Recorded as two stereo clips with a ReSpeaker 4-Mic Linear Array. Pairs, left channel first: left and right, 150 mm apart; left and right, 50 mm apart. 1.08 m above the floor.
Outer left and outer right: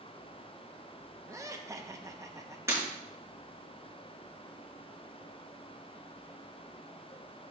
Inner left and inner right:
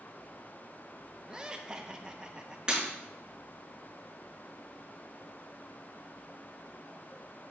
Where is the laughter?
20° right (ahead or behind), 0.8 m.